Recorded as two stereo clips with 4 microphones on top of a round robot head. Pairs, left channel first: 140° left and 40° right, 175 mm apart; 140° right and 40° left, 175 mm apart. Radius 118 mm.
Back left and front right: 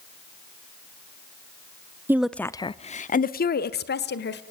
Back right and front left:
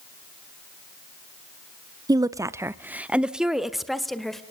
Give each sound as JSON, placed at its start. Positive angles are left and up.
{"t": 2.1, "sound": "a woman speaking", "azimuth_deg": 15, "distance_m": 0.7}